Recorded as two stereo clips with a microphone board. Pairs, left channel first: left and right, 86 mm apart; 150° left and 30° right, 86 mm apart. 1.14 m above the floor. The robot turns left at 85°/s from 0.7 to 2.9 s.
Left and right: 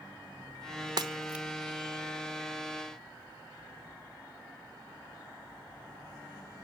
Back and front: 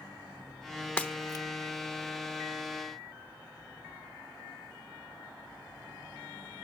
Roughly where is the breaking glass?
Behind right.